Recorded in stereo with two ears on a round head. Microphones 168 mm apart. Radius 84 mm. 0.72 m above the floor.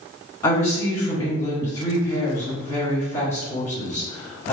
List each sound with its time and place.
0.4 s a woman speaking: 15° left (ahead or behind), 1.3 m